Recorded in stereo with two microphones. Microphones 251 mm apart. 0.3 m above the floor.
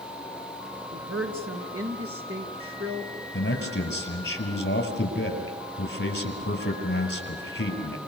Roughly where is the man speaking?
Left.